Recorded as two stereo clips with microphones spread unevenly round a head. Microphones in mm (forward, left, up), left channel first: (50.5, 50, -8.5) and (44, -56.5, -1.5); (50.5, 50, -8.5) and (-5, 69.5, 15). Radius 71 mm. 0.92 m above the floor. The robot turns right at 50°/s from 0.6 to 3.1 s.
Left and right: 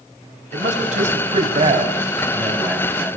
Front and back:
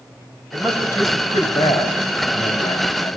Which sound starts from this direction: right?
A man speaking, at 0.5 s.